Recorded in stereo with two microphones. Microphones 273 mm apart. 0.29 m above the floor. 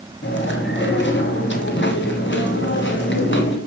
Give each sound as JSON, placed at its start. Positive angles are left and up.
{"t": 0.2, "sound": "chewing", "side_deg": 40, "distance_m": 1.4}